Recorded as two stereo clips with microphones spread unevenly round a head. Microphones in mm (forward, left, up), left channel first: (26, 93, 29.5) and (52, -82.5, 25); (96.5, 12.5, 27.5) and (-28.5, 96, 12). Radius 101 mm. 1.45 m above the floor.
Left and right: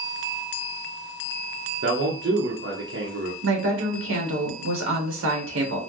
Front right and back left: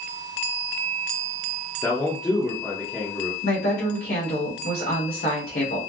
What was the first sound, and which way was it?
A man speaking, 115° right.